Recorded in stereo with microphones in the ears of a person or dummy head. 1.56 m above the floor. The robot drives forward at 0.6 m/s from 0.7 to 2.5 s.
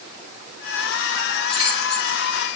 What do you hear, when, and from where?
1.5 s keys jangling: 30° left (ahead or behind), 3.5 m; by 2.2 s 35° left (ahead or behind), 3 m